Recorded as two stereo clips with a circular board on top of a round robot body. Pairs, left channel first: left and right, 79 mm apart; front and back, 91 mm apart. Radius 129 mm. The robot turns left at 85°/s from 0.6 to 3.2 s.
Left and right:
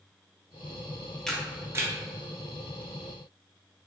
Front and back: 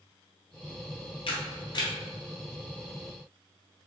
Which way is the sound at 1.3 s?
10° left.